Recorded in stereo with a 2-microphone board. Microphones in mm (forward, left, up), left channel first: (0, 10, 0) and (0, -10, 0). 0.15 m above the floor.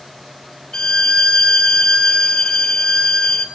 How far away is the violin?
About 1.0 m.